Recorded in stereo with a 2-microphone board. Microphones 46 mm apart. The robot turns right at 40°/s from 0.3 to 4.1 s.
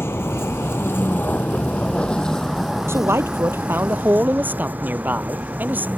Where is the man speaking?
95° right; by 5.9 s 45° right.